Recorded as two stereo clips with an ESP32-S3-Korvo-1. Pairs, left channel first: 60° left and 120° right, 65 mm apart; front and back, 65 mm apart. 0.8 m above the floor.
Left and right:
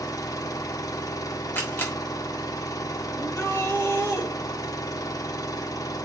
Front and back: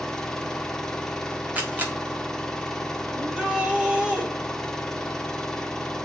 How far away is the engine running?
About 1.2 m.